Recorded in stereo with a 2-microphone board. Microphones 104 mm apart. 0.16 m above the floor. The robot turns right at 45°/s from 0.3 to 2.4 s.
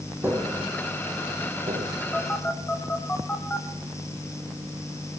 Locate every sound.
0.2 s tapping: 20° right (ahead or behind), 2.5 m; by 1.9 s 80° right, 2.5 m
2.1 s a phone buzzing: 10° left (ahead or behind), 3.5 m; by 3.7 s 20° left (ahead or behind), 3.5 m